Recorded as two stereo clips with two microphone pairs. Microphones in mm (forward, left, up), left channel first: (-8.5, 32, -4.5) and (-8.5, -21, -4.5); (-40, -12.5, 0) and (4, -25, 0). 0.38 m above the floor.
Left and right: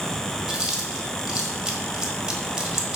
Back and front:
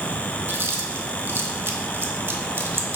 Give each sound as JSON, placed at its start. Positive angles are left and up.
{"t": 0.5, "sound": "chewing", "azimuth_deg": -15, "distance_m": 1.3}